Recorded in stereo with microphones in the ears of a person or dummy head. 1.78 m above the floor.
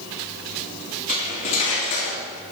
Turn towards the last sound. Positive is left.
turn(degrees=40)  # may be behind; listen again after turning